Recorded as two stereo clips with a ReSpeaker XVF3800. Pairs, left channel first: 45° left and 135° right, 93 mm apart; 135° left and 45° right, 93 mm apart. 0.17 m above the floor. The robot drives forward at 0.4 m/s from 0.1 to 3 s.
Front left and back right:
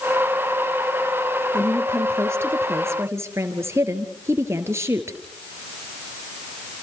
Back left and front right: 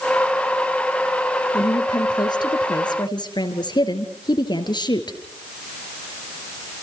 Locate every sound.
1.5 s a woman speaking: 165° left, 3.5 m